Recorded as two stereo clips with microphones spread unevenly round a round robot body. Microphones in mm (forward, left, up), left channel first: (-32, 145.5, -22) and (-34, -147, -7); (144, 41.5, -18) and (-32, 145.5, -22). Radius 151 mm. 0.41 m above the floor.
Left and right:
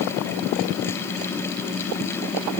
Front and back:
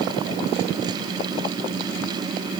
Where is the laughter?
I don't hear laughter.